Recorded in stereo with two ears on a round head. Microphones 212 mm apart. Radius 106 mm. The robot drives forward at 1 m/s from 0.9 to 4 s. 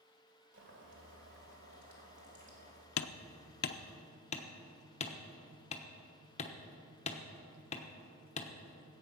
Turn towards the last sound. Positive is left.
turn(degrees=30)  # may be behind; listen again after turning